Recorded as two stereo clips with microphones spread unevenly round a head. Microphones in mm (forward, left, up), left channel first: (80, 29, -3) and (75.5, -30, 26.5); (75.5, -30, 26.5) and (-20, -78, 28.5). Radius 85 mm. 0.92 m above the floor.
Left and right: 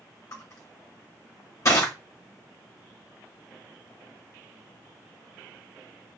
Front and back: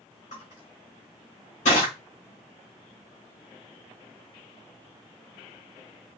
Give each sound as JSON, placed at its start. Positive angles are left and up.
{"t": 0.3, "sound": "crushing", "azimuth_deg": 55, "distance_m": 2.5}